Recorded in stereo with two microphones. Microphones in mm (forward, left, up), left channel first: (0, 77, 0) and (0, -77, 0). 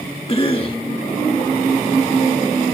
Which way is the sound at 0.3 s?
40° left (ahead or behind).